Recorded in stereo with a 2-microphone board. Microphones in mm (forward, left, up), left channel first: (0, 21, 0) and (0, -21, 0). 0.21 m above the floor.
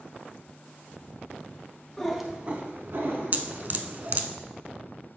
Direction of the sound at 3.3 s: 45° right (ahead or behind).